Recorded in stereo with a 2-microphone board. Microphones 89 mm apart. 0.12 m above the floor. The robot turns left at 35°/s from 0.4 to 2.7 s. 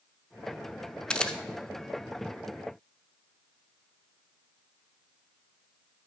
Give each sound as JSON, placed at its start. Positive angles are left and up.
{"t": 1.1, "sound": "a camera shutter", "side_deg": 10, "distance_m": 0.8}